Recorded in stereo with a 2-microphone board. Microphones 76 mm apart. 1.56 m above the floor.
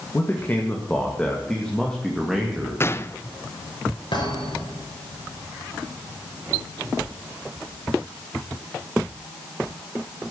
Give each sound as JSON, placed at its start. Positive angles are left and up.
{"t": 0.1, "sound": "a man speaking", "side_deg": 30, "distance_m": 2.5}
{"t": 2.8, "sound": "a gunshot", "side_deg": 30, "distance_m": 0.6}
{"t": 4.1, "sound": "a thud", "side_deg": 75, "distance_m": 8.5}